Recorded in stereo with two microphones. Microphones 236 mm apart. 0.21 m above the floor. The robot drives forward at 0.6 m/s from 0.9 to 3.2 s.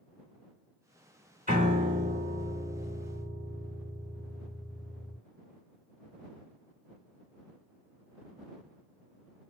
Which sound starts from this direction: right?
A piano, at 1.5 s.